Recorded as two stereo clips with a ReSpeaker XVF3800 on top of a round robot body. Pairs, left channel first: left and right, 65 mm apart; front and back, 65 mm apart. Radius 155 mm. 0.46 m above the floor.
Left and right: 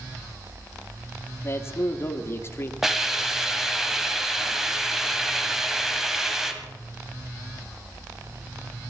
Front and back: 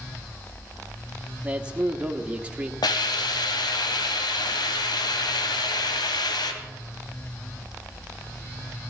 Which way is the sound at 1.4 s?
115° left.